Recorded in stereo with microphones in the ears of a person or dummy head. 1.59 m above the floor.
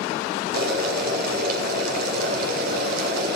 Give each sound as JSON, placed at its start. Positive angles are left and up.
{"t": 0.5, "sound": "boiling", "side_deg": -60, "distance_m": 6.0}